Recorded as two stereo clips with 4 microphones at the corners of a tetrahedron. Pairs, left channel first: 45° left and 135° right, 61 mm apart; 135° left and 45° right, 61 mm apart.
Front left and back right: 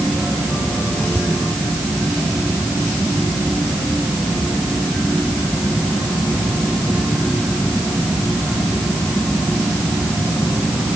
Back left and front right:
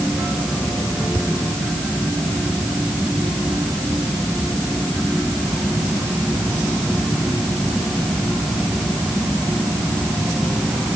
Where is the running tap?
I don't hear a running tap.